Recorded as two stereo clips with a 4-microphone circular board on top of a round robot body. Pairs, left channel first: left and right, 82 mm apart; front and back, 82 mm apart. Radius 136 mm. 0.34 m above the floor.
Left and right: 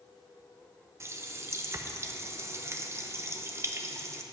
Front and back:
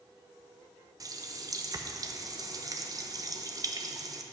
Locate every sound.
1.0 s a running tap: 145° right, 0.9 m